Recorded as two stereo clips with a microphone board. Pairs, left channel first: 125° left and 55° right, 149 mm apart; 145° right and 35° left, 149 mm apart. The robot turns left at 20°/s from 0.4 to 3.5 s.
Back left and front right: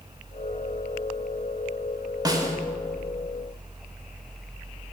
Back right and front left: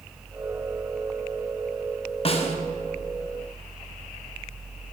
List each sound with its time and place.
2.2 s a snare drum: 110° right, 0.6 m; by 2.6 s 120° right, 0.6 m